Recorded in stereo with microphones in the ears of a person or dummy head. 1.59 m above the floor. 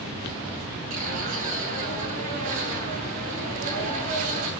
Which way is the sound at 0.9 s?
45° right (ahead or behind).